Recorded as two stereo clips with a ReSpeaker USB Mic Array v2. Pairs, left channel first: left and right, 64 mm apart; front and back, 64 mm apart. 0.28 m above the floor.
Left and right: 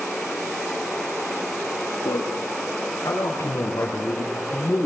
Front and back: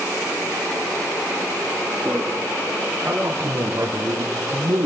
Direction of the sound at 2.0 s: 110° left.